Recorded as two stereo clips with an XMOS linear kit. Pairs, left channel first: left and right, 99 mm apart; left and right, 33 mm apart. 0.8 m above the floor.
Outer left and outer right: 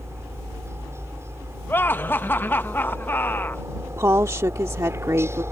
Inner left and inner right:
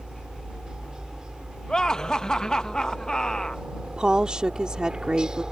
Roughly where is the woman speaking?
Right.